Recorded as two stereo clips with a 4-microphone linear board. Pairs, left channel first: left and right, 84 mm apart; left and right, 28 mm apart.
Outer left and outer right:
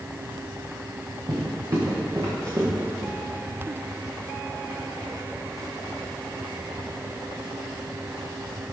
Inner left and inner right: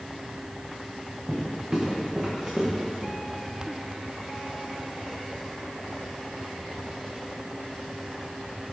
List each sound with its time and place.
1.3 s footsteps: 35° right (ahead or behind), 4.5 m; by 3.1 s 50° right (ahead or behind), 5 m